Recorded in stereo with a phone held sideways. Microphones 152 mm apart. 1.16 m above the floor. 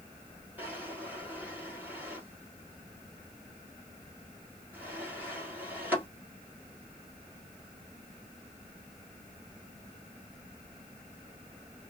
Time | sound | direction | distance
0.6 | a drawer | 10° right (ahead or behind) | 1.6 m